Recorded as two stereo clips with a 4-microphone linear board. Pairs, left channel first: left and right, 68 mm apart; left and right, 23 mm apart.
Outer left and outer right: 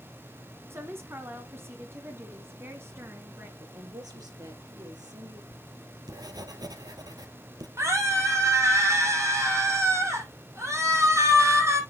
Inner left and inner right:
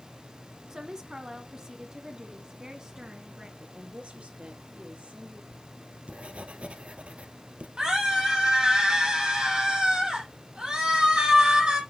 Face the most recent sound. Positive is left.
turn(degrees=-40)  # may be behind; listen again after turning